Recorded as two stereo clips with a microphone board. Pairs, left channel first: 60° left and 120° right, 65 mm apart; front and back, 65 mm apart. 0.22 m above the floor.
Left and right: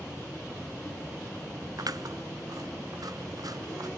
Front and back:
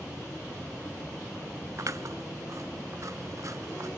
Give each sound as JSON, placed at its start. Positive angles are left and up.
{"t": 1.8, "sound": "scissors", "azimuth_deg": -140, "distance_m": 0.6}